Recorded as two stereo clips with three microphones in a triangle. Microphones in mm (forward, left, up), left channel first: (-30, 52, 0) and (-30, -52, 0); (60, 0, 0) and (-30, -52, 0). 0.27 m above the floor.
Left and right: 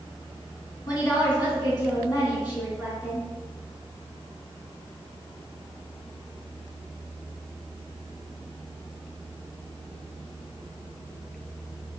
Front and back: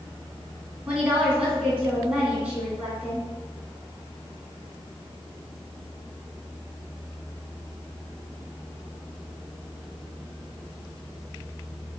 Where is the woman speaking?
130° left, 2.5 m.